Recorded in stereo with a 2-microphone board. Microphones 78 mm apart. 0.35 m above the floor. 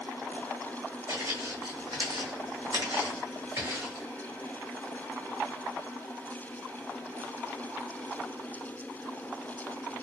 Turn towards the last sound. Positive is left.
turn(degrees=-30)  # may be behind; listen again after turning